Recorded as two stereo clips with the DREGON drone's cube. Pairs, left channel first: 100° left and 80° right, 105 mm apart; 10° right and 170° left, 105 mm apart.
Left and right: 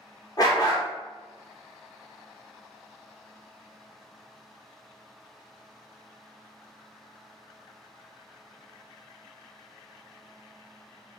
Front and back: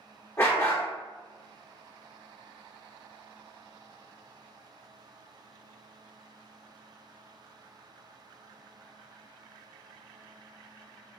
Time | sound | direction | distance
0.4 | a dog barking | 50° left | 0.9 m